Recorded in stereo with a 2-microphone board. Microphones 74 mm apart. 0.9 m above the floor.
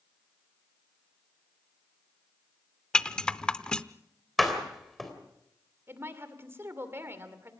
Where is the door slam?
Centre (ahead or behind), 3.5 m.